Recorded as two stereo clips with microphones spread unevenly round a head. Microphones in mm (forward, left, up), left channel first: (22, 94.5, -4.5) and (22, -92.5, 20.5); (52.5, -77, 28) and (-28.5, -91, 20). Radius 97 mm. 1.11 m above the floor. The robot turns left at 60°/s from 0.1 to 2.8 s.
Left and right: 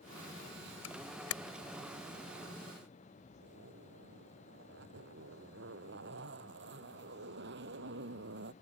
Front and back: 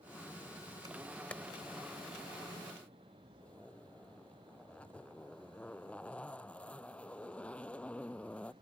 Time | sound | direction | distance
0.8 | a camera shutter | 120° left | ?
3.4 | a zipper | 65° right | ?